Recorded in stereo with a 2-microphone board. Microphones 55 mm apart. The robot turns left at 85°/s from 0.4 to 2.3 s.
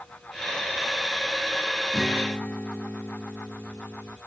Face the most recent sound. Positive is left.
turn(degrees=150)